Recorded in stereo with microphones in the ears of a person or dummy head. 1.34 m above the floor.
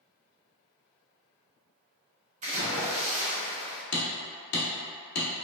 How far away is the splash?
About 0.9 m.